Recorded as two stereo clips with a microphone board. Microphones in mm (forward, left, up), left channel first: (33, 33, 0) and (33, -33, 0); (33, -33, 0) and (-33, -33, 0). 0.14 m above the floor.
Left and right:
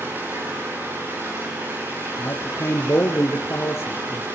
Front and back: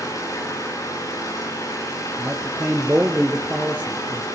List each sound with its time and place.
0.0 s an engine running: 30° right, 7 m
2.2 s a man speaking: 120° left, 1.9 m